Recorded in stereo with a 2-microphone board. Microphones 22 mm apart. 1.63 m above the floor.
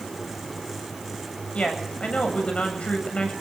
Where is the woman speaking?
60° left (ahead or behind), 8 m.